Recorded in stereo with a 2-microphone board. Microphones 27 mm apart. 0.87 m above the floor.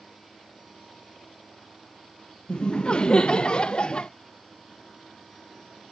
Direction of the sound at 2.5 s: 40° left (ahead or behind).